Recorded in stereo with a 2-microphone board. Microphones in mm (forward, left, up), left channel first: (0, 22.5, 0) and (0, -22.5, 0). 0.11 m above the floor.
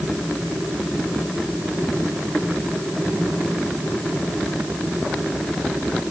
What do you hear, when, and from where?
Only background noise.